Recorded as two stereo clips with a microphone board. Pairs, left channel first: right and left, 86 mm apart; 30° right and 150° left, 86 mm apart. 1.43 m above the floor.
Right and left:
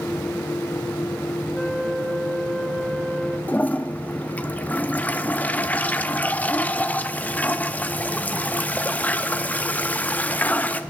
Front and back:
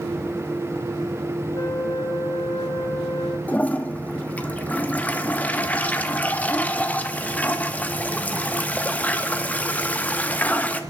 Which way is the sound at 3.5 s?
60° right.